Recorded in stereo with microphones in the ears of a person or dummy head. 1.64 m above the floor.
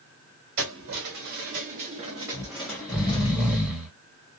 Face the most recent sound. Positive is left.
turn(degrees=0)  # may be behind; listen again after turning